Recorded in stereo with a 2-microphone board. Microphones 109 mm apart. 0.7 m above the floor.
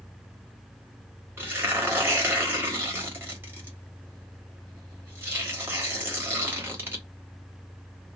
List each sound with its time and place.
1.4 s tearing paper: 20° right (ahead or behind), 1.4 m